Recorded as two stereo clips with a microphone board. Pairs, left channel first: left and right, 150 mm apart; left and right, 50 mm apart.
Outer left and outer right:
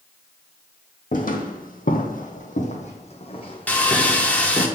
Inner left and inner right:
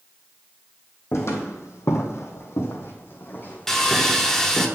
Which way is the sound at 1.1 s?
65° left (ahead or behind).